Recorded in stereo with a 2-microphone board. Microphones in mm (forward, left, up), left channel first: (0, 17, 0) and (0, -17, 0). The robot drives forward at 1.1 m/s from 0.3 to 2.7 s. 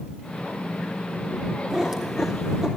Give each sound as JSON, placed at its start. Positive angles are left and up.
{"t": 1.7, "sound": "a cat meowing", "side_deg": -15, "distance_m": 1.8}